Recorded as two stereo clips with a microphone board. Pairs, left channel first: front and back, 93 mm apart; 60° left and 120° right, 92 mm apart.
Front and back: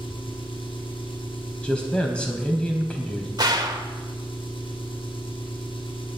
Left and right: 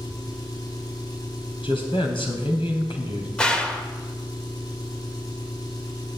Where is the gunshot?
140° left, 1.4 m.